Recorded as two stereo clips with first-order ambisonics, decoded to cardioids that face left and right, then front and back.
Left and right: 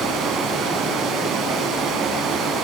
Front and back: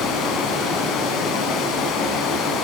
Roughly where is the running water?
Ahead right.